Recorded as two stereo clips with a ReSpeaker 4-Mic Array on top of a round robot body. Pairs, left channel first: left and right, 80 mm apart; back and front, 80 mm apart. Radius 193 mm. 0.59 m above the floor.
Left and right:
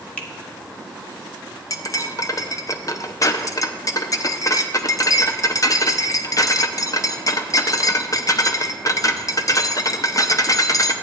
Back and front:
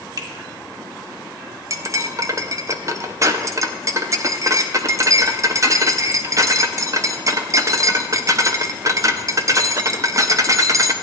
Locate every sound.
0.2 s a finger snap: 20° left, 1.5 m
1.7 s cutlery clinking: 45° left, 0.7 m